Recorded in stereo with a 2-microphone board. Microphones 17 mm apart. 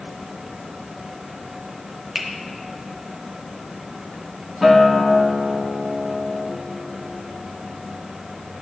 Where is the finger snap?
5° right (ahead or behind), 0.9 m.